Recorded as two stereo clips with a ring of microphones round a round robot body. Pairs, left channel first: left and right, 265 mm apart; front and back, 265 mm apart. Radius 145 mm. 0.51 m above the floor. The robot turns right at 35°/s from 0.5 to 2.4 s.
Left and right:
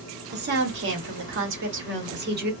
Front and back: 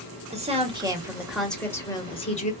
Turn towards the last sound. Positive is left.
turn(degrees=-55)